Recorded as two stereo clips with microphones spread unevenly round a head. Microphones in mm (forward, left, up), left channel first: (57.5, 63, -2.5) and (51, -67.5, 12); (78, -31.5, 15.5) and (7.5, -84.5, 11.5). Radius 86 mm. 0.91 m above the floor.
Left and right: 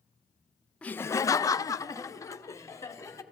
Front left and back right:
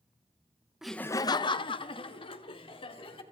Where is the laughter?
145° left, 0.5 m; by 3.2 s 20° left, 2.5 m.